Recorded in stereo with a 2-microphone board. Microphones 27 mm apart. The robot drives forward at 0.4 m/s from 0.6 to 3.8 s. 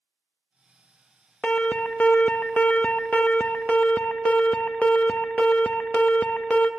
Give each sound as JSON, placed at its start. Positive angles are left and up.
{"t": 1.4, "sound": "an alarm", "side_deg": 50, "distance_m": 1.0}